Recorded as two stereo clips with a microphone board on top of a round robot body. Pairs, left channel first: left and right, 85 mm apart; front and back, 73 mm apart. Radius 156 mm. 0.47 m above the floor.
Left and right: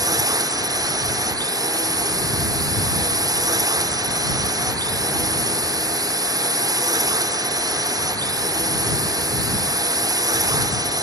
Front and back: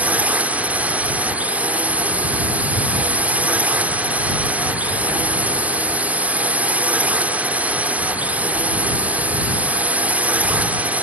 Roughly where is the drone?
Behind right.